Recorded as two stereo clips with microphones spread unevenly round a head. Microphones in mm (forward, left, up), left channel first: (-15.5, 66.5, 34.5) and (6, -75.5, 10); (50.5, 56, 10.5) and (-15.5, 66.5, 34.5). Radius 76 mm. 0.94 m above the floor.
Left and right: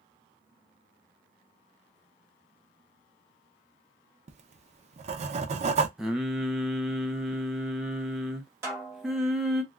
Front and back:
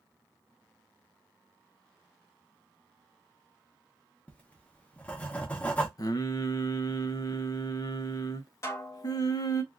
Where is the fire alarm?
I don't hear a fire alarm.